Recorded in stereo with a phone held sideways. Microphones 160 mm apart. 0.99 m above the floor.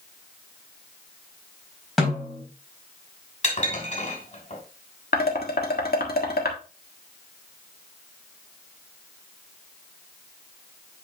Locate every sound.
2.0 s a snare drum: centre (ahead or behind), 4 m
3.4 s dishes clattering: 45° left (ahead or behind), 3 m
5.1 s dishes clattering: 75° left (ahead or behind), 1.4 m